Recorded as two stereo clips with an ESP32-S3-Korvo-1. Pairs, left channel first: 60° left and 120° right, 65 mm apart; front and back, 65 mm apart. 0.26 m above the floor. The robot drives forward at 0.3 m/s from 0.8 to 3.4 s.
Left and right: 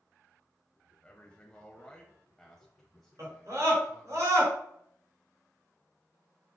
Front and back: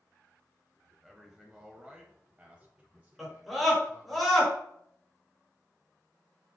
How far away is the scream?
About 4 m.